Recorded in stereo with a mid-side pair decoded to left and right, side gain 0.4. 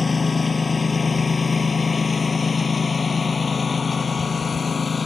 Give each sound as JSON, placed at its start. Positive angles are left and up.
{"t": 0.0, "sound": "a lawn mower", "azimuth_deg": 25}